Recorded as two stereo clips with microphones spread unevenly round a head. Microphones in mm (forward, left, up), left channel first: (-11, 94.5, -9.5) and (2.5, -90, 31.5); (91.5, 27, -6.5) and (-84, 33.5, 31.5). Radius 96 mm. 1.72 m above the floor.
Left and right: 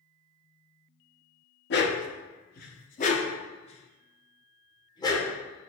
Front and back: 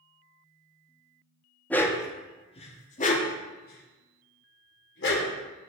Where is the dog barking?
90° left, 1.3 m; by 5.3 s 20° left, 3 m.